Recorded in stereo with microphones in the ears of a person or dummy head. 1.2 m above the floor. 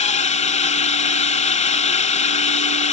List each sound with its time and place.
0.0 s a drone: 35° left (ahead or behind)